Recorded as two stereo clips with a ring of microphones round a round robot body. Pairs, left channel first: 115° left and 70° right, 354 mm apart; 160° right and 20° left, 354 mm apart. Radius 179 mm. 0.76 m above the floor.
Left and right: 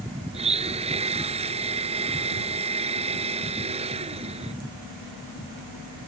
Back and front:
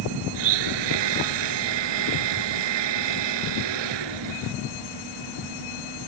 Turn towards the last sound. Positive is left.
turn(degrees=5)